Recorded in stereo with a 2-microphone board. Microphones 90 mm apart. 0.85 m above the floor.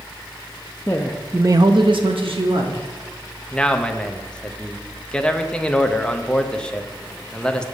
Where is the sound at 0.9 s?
25° left (ahead or behind), 0.7 m; by 2.9 s 75° right (ahead or behind), 1.7 m.